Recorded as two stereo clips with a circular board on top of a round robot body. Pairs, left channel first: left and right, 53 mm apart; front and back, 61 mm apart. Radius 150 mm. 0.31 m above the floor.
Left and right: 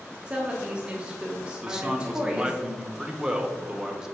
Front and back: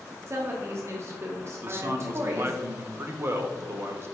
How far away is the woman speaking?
About 1.2 m.